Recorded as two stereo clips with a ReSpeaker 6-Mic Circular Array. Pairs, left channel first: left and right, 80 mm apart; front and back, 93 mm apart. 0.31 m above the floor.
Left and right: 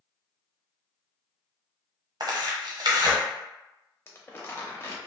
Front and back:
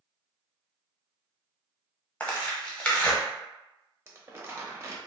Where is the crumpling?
135° left, 0.6 m.